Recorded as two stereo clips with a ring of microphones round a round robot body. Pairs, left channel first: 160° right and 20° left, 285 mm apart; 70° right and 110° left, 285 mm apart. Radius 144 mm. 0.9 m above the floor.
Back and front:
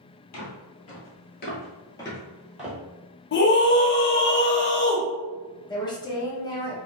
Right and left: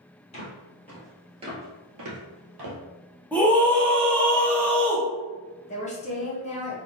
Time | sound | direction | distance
0.3 | footsteps | 130° right | 1.5 m
3.3 | a scream | 150° right | 0.6 m
5.7 | a woman speaking | 100° right | 0.9 m